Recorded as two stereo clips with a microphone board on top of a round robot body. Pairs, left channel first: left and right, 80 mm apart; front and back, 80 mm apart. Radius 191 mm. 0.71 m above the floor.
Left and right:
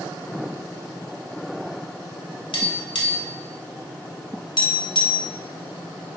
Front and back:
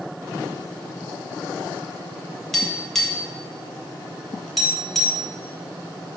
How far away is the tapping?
About 1.8 m.